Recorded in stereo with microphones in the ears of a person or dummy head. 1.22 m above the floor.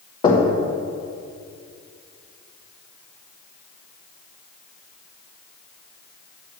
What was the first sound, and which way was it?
Knocking, 25° left (ahead or behind).